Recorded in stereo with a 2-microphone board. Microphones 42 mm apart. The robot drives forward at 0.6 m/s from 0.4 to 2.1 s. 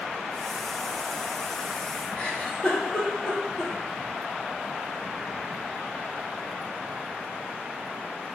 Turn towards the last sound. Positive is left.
turn(degrees=15)  # may be behind; listen again after turning